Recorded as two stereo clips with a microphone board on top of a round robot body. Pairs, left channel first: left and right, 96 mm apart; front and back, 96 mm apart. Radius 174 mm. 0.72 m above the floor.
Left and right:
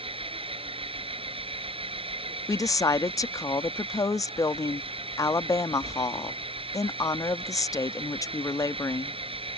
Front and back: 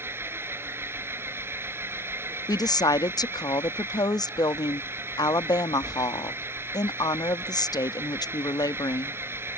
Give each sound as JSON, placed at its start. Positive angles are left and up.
{"t": 0.0, "sound": "an engine running", "azimuth_deg": -115}
{"t": 2.5, "sound": "a woman speaking", "azimuth_deg": 40}